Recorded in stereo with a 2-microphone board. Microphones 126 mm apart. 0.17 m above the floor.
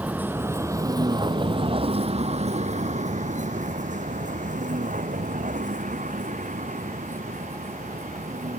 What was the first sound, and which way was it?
A vehicle, 10° right (ahead or behind).